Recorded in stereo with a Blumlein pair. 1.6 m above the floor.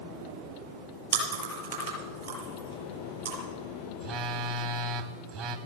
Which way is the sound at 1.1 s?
65° right.